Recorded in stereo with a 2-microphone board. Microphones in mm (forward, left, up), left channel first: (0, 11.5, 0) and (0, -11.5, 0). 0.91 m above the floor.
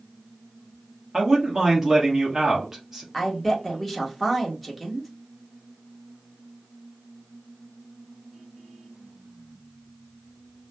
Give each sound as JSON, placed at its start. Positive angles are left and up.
{"t": 1.1, "sound": "a man speaking", "side_deg": -20, "distance_m": 1.2}
{"t": 3.1, "sound": "a woman speaking", "side_deg": 0, "distance_m": 1.1}